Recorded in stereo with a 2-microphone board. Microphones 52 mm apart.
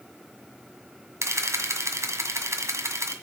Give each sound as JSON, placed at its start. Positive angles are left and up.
{"t": 1.2, "sound": "a camera shutter", "side_deg": -85, "distance_m": 1.8}